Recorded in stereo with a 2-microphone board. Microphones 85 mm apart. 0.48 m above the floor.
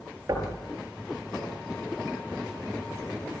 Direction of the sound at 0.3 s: 40° right (ahead or behind).